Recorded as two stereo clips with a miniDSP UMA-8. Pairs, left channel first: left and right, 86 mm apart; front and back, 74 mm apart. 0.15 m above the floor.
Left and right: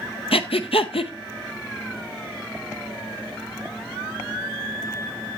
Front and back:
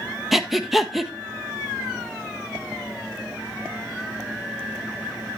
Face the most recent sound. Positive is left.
turn(degrees=90)